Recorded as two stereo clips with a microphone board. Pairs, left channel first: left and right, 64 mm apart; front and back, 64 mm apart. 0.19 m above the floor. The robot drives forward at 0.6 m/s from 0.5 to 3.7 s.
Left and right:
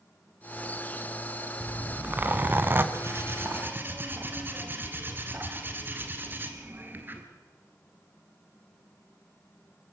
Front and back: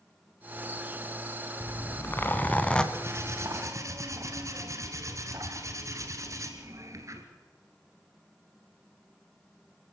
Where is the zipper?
30° right, 1.5 m; by 2.8 s 65° right, 1.1 m.